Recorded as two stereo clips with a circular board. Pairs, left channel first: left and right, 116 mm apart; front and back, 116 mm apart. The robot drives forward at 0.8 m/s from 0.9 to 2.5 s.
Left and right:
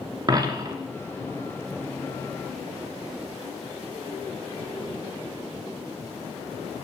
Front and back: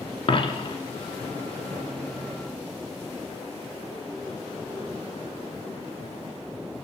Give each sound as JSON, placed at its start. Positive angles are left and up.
{"t": 0.3, "sound": "a dropped coin", "azimuth_deg": -35, "distance_m": 0.8}